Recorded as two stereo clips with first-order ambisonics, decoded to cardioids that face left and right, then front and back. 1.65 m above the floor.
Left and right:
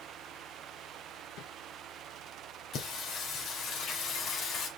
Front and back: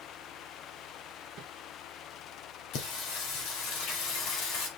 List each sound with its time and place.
1.4 s a whoosh: 125° left, 1.1 m
2.7 s singing: 30° left, 2 m